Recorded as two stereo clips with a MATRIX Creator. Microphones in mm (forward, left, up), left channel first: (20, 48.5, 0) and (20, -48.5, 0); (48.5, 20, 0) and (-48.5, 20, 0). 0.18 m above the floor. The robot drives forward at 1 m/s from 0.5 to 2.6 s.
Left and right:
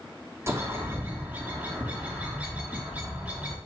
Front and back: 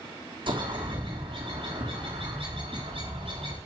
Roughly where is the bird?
Behind right.